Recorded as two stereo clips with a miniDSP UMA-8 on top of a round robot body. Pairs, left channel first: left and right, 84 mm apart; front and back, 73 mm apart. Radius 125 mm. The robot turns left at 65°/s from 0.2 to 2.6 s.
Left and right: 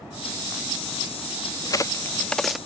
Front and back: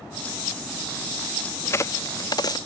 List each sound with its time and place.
1.6 s a crack: 55° left; by 2.6 s 5° right